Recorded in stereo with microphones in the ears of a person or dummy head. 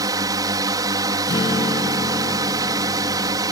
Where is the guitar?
20° left (ahead or behind).